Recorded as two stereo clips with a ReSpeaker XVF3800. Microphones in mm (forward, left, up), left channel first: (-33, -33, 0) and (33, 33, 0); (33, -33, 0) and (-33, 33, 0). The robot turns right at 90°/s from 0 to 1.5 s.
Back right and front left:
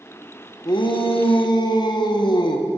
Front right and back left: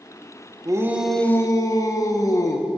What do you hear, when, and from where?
0.7 s a shout: 175° right, 1.0 m; by 2.7 s 100° right, 1.0 m